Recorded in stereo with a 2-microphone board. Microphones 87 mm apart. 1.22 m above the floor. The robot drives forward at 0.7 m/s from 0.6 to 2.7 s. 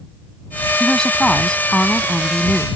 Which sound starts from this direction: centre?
A woman speaking, at 0.8 s.